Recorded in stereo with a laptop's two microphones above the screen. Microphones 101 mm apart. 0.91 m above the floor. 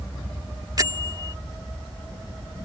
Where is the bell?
40° right (ahead or behind).